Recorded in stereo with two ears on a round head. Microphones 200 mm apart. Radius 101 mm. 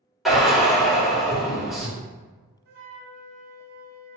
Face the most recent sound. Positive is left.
turn(degrees=-45)  # may be behind; listen again after turning